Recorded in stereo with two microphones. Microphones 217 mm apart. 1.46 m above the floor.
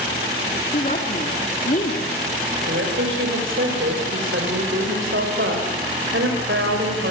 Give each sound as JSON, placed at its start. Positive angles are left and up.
{"t": 0.7, "sound": "a woman speaking", "side_deg": 40, "distance_m": 3.5}
{"t": 2.6, "sound": "a woman speaking", "side_deg": -65, "distance_m": 5.5}